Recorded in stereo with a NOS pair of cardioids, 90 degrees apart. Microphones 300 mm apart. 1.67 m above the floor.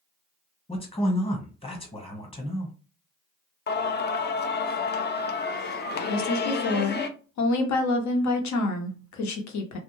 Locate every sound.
0.7 s a man speaking: 20° left, 1.2 m
3.7 s singing: 35° left, 0.5 m
6.1 s a woman speaking: 65° left, 0.9 m